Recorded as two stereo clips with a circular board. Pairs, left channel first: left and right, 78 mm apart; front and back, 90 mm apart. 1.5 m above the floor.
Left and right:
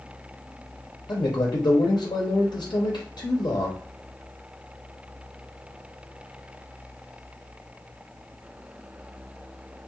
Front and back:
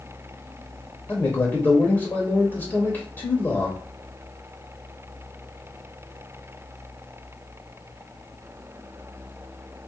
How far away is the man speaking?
About 0.5 m.